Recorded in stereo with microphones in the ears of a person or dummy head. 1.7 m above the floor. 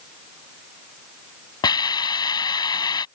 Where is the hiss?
20° left (ahead or behind).